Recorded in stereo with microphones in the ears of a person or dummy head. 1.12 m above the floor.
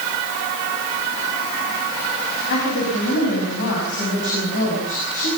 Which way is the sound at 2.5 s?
65° left (ahead or behind).